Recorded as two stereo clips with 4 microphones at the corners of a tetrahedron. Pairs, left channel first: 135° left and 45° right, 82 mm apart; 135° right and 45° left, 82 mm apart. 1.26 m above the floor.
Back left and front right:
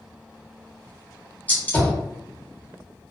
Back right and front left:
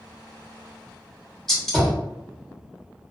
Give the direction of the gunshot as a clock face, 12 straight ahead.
7 o'clock.